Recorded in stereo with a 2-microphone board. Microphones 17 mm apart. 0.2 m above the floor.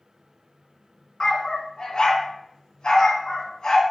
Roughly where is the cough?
I don't hear a cough.